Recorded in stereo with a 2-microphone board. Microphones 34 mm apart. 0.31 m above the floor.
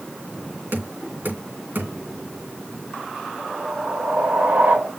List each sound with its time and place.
0.7 s knocking: 65° right (ahead or behind), 3.5 m
3.4 s a whoosh: 60° right (ahead or behind), 2 m